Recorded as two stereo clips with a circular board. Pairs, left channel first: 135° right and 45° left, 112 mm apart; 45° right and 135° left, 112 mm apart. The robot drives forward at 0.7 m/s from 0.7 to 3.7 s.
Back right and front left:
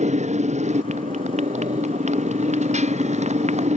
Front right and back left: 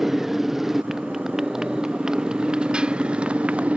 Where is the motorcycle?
45° left; by 3.8 s 55° left.